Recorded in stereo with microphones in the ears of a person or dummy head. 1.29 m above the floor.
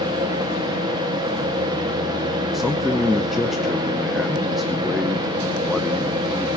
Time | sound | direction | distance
0.0 | a fan | 25° right (ahead or behind) | 1.5 m
2.5 | a man speaking | centre (ahead or behind) | 0.6 m